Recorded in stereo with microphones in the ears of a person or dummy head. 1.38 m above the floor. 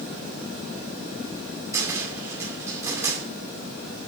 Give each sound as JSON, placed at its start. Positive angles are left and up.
{"t": 1.7, "sound": "a cupboard door", "side_deg": -10, "distance_m": 2.5}